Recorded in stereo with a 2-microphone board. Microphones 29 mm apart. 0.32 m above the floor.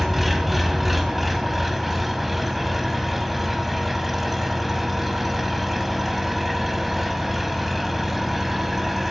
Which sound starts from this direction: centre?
An engine running, at 0.0 s.